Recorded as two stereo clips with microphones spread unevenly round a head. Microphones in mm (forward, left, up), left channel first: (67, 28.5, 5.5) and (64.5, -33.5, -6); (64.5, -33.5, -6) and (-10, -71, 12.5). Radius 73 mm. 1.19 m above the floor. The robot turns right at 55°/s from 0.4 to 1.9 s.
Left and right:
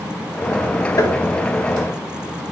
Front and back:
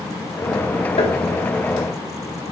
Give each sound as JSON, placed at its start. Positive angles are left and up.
{"t": 1.0, "sound": "tapping", "azimuth_deg": 65, "distance_m": 2.0}